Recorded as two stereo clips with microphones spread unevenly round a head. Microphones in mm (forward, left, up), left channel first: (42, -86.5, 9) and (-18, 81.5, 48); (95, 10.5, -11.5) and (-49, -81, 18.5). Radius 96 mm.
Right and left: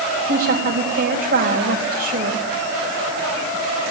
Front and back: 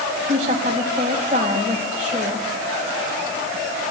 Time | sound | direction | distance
0.3 | a woman speaking | 145° left | 4.5 m